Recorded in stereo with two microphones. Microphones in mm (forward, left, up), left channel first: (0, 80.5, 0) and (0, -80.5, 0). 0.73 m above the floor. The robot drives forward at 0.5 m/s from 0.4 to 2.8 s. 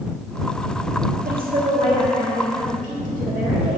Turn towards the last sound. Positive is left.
turn(degrees=-55)  # may be behind; listen again after turning